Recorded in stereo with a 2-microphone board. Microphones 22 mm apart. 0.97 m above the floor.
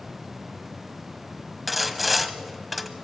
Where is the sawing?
5° right (ahead or behind), 0.9 m.